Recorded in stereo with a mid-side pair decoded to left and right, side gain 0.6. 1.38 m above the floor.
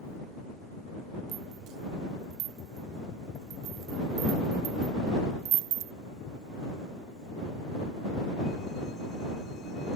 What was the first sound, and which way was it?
A rattle, 65° right.